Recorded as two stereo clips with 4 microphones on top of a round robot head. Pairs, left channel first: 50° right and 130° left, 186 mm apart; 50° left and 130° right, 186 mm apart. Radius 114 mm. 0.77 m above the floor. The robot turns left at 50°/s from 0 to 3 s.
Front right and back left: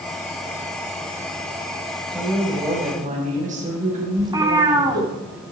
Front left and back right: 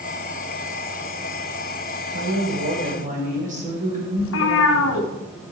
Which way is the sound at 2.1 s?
135° right.